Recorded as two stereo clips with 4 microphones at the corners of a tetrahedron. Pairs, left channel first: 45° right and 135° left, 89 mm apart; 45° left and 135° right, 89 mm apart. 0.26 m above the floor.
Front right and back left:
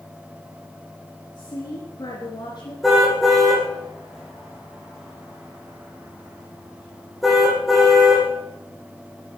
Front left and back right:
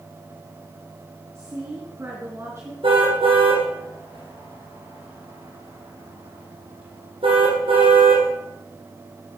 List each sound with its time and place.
1.4 s a woman speaking: 80° right, 3.5 m
2.8 s a car horn: 140° right, 6 m